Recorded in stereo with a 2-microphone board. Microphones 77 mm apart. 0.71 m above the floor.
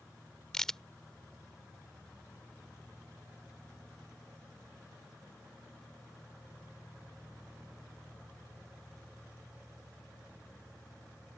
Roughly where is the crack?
Centre.